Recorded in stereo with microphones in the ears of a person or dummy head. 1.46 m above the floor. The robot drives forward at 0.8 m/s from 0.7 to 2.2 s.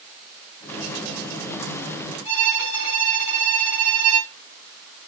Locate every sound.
2.2 s a violin: 25° right (ahead or behind), 3.5 m